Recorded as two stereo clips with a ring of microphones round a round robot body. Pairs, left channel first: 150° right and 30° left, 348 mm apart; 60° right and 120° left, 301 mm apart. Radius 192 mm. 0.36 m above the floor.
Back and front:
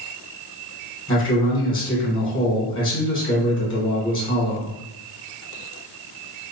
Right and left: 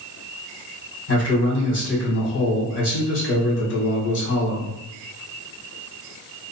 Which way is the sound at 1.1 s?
80° right.